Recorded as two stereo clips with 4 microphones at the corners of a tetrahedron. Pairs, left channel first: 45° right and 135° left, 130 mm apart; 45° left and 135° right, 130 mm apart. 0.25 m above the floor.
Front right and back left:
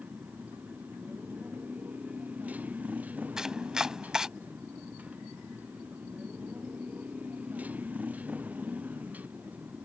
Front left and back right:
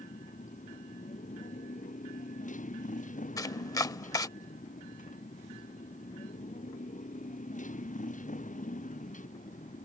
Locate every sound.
0.0 s a motorcycle: 55° left
3.4 s chopping: 60° left